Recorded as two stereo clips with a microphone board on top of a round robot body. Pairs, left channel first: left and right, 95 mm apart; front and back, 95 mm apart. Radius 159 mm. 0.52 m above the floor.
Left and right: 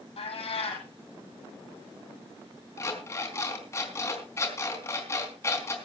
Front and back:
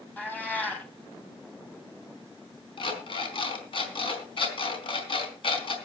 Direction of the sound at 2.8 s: 30° left.